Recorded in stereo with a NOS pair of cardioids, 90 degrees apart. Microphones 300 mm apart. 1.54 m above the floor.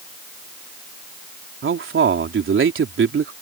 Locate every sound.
1.6 s a man speaking: 45° right